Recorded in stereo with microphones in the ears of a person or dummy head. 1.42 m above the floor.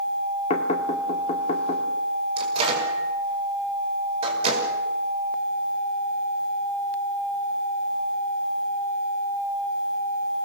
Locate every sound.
0.5 s knocking: 35° left (ahead or behind), 2.5 m
2.4 s a microwave: 35° right (ahead or behind), 5 m